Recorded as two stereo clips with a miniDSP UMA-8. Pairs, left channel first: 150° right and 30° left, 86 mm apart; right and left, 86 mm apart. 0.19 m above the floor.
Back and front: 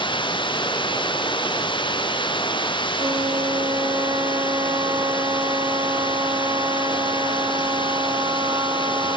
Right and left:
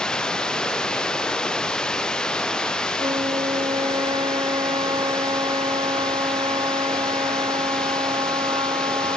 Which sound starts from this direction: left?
A flute, at 3.0 s.